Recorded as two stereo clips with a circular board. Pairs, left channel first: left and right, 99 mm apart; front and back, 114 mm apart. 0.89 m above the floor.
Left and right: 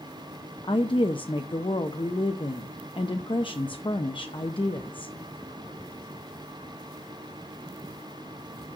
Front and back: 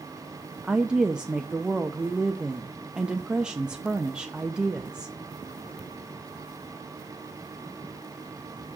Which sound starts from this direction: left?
A woman speaking, at 0.6 s.